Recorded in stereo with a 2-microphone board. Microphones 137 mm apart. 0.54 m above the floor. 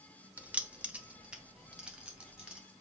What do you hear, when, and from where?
0.4 s keys jangling: 10° right (ahead or behind), 1.1 m; by 2.6 s 5° right (ahead or behind), 3 m